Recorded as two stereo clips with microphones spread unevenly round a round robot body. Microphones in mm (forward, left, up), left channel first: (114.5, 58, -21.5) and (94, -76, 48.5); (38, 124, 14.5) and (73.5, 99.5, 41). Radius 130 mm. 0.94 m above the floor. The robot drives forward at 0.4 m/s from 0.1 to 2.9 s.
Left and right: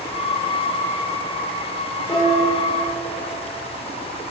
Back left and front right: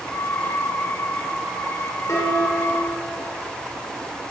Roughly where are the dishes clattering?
Behind.